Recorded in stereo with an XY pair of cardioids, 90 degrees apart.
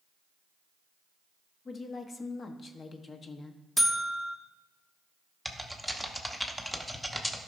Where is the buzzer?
10° left, 1.1 m.